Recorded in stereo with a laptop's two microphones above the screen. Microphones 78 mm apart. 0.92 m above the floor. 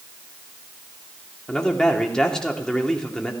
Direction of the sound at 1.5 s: 10° left (ahead or behind).